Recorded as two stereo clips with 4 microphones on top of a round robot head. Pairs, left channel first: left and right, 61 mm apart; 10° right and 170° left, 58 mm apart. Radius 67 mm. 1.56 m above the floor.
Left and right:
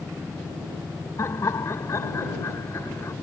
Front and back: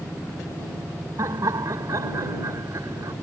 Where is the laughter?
135° left.